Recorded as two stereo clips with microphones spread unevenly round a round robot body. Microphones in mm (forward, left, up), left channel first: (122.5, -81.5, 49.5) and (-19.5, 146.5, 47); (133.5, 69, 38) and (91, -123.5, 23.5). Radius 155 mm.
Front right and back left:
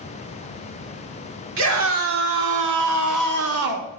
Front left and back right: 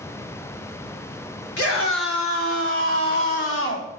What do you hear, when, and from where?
1.6 s a scream: 105° left, 4 m; by 3.9 s 125° left, 2 m